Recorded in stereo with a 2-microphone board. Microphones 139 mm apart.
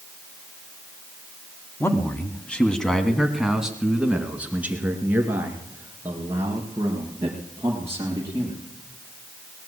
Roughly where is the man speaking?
Centre.